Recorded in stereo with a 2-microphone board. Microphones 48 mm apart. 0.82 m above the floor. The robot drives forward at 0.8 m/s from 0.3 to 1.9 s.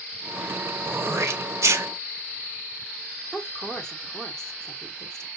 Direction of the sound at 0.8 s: 55° right (ahead or behind).